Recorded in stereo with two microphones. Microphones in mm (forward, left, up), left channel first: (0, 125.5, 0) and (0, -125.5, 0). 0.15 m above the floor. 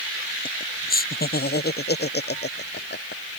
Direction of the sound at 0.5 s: 35° left (ahead or behind).